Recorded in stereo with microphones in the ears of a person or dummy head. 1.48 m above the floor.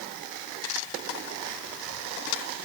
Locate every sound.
Only background noise.